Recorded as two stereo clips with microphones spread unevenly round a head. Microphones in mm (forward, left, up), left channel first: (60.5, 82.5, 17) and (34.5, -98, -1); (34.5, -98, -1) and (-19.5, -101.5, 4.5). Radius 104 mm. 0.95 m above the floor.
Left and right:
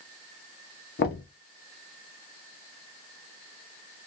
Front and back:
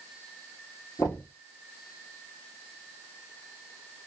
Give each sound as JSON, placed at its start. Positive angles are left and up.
{"t": 1.0, "sound": "knocking", "azimuth_deg": 50, "distance_m": 1.0}